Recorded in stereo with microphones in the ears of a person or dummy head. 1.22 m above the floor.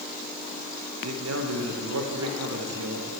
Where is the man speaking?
85° right, 1.1 m.